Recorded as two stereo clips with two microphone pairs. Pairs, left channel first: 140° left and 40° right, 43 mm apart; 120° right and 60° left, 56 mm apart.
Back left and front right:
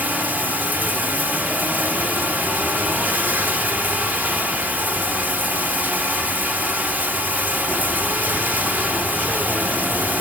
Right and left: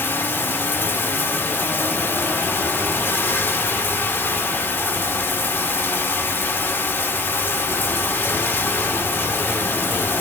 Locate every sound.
0.0 s running water: 80° right, 1.2 m